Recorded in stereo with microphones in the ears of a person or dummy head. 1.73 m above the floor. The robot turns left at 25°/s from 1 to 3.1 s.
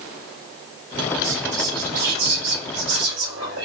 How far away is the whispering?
About 1.9 m.